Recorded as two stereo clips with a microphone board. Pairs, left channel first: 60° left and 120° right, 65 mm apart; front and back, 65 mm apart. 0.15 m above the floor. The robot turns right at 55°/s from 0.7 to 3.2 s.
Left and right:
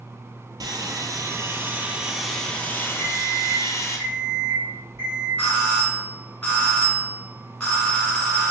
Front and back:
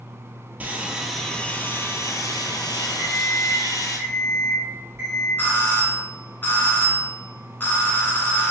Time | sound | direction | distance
0.6 | sawing | 115° right | 0.5 m
3.0 | an alarm clock | 145° right | 1.9 m
5.4 | a doorbell | 10° left | 1.8 m